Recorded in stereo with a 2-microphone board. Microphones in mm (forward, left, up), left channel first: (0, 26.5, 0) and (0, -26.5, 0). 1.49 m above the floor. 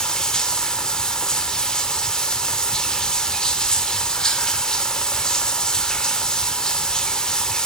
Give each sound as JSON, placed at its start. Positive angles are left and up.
{"t": 0.0, "sound": "running water", "side_deg": 10, "distance_m": 1.7}